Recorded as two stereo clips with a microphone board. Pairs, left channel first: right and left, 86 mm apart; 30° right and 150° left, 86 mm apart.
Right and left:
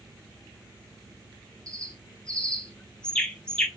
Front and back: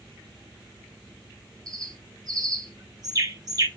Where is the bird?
170° right, 0.5 m.